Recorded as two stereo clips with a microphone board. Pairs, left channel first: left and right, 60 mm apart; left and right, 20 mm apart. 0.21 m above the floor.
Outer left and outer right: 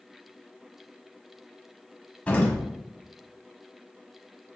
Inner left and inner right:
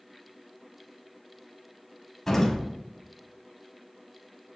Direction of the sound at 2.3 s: 20° left (ahead or behind).